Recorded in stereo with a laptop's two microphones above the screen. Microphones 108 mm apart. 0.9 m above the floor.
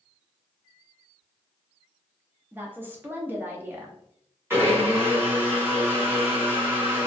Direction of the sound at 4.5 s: 20° right (ahead or behind).